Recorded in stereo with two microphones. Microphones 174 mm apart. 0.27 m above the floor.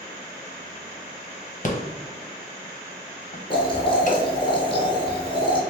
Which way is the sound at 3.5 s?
30° left (ahead or behind).